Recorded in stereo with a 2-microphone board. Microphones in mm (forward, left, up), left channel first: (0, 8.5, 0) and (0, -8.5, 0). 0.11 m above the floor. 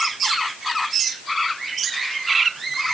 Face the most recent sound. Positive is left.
No sound to turn to.